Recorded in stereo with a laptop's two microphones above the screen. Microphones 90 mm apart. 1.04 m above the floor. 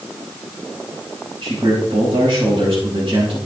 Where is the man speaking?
80° right, 6 m.